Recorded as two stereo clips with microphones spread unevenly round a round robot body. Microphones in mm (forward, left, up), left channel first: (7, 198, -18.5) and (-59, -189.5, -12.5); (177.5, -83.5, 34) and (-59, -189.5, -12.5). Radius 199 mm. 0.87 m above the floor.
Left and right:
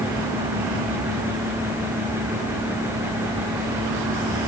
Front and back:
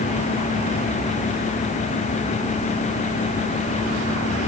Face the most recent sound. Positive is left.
No sound to turn to.